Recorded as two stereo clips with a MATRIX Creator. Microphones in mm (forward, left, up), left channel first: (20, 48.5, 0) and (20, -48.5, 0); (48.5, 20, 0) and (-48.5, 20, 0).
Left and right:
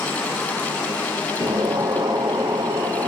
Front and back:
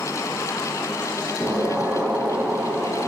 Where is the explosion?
105° right, 0.9 m.